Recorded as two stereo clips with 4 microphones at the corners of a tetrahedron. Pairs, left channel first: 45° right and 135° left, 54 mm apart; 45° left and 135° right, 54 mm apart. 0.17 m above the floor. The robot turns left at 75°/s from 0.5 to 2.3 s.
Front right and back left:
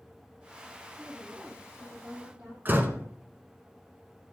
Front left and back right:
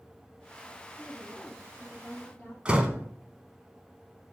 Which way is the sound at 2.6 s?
165° left.